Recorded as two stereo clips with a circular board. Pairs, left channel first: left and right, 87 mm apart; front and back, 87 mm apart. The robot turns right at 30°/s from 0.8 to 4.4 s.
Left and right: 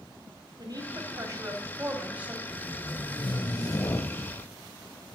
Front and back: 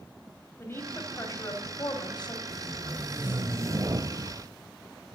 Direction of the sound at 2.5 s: 95° left.